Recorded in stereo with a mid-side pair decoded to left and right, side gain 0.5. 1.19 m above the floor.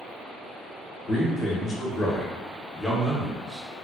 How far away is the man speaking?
About 1.2 m.